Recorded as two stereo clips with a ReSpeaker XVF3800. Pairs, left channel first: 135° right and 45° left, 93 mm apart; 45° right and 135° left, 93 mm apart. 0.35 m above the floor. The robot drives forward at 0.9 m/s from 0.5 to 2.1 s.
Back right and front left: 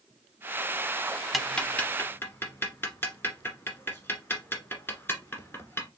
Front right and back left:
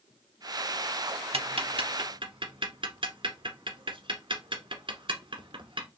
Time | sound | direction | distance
1.3 | ticking | 135° left | 0.6 m